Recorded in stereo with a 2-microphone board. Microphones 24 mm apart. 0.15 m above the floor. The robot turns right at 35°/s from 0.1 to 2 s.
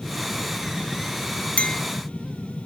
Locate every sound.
0.0 s an aircraft: 55° left; by 2.7 s 120° left
1.6 s a clink: 60° left (ahead or behind); by 1.8 s 55° left (ahead or behind)